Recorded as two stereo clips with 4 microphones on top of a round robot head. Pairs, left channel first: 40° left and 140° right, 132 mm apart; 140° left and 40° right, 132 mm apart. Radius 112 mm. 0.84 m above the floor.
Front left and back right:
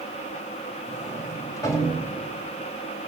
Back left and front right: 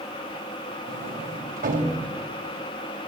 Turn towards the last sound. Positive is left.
turn(degrees=-25)